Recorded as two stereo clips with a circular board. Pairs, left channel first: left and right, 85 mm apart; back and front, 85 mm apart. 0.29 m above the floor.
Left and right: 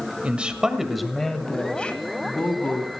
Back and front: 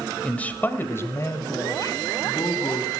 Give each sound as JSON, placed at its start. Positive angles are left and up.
{"t": 0.2, "sound": "a man speaking", "azimuth_deg": -130, "distance_m": 1.4}